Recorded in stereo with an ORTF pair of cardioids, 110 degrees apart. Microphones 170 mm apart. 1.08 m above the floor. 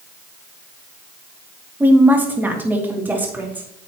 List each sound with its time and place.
1.8 s a woman speaking: 10° right, 1.7 m